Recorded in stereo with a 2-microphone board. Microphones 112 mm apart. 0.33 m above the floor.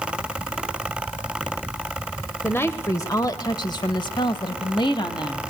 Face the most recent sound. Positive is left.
turn(degrees=45)  # may be behind; listen again after turning